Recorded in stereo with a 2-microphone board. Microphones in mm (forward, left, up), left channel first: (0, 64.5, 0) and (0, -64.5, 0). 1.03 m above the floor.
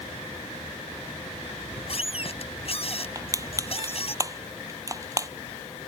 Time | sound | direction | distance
1.6 | a squeak | 50° left (ahead or behind) | ?
3.1 | crushing | 25° right (ahead or behind) | ?